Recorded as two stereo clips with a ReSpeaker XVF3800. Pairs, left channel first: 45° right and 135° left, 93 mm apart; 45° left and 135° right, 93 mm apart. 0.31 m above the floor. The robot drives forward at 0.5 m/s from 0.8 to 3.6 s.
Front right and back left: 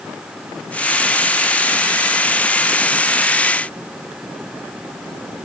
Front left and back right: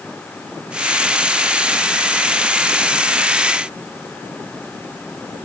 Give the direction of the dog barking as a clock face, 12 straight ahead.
No dog barking in this recording.